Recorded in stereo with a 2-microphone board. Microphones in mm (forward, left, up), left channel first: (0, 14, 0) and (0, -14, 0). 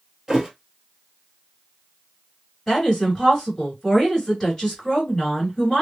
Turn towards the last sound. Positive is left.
turn(degrees=15)  # may be behind; listen again after turning